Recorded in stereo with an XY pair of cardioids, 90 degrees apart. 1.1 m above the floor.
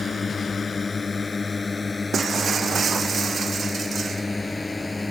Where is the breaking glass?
50° right.